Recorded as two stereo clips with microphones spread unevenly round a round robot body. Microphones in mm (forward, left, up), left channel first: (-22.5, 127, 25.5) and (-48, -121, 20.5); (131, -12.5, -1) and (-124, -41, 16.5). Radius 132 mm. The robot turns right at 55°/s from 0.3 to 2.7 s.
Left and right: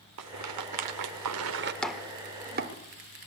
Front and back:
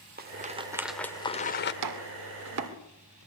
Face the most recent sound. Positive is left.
turn(degrees=-140)